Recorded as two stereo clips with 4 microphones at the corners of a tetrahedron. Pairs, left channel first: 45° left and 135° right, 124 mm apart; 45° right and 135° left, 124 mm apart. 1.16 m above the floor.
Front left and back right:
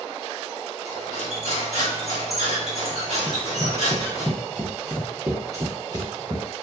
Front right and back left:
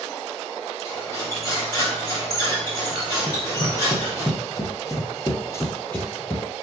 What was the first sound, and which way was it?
Cutlery clinking, 15° left.